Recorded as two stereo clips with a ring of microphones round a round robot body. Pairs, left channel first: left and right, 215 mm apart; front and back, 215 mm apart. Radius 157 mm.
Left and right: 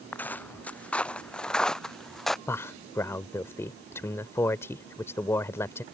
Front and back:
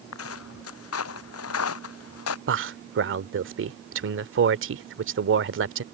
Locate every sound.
0.1 s footsteps: 10° left; by 2.4 s straight ahead
2.5 s a man speaking: 170° left